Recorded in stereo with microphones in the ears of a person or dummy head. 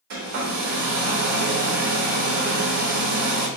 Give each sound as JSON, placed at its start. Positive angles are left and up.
{"t": 0.1, "sound": "a hair dryer", "side_deg": -50, "distance_m": 0.6}